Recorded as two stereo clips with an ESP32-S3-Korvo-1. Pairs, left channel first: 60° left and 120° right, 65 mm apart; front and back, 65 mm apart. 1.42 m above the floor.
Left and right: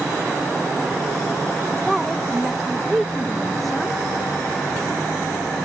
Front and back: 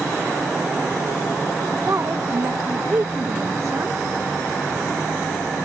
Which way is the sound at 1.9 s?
145° left.